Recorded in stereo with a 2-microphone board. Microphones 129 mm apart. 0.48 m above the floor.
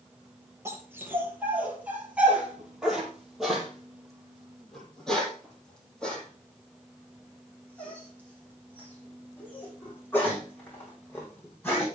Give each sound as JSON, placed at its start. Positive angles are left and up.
{"t": 0.7, "sound": "a dog barking", "side_deg": -20, "distance_m": 5.0}